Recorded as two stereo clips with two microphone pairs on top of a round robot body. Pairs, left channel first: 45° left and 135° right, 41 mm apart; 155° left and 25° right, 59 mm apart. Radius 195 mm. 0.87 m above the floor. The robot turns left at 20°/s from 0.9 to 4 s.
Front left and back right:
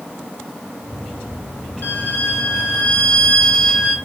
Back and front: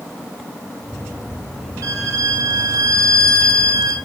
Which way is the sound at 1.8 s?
5° left.